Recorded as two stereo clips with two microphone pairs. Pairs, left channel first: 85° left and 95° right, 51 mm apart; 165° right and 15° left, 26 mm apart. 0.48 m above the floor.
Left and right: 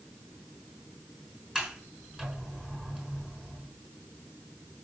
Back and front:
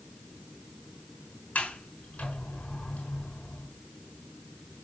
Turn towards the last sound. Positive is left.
turn(degrees=-175)